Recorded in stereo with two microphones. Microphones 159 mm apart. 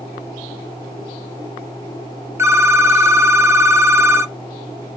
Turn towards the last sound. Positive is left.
turn(degrees=-15)  # may be behind; listen again after turning